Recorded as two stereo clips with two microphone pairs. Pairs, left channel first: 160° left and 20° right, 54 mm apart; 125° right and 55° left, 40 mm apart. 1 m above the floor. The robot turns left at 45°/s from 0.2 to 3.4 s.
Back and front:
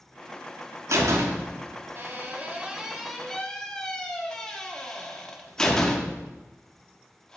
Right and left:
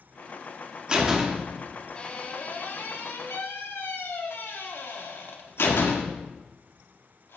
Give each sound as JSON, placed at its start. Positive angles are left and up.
{"t": 0.9, "sound": "a door slam", "azimuth_deg": -10, "distance_m": 1.4}